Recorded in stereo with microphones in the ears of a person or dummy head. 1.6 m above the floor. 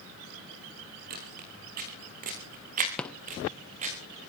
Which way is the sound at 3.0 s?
5° left (ahead or behind).